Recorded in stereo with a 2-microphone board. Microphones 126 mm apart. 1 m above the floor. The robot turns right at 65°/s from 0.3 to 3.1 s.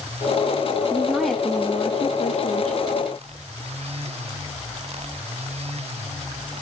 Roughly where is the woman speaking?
Ahead right.